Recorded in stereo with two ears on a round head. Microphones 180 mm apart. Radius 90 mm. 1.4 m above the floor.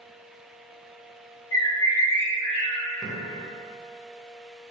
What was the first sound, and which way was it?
A bird, 70° left (ahead or behind).